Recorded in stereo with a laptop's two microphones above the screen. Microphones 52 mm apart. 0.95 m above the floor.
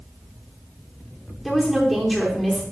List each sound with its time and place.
1.4 s a woman speaking: centre (ahead or behind), 3 m